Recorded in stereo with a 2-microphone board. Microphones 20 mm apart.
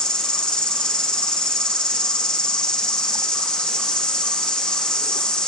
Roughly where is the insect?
Left.